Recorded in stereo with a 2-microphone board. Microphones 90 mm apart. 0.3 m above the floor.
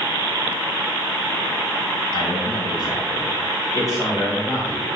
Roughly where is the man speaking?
Left.